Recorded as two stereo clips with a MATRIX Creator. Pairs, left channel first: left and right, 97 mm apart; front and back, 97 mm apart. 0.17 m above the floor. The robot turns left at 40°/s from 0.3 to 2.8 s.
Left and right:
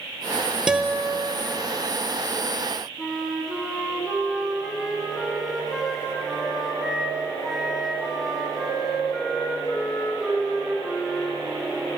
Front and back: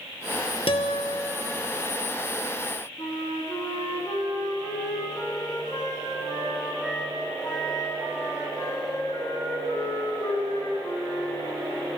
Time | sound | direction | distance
0.7 | a guitar | 10° right | 1.0 m
3.0 | a flute | 5° left | 1.7 m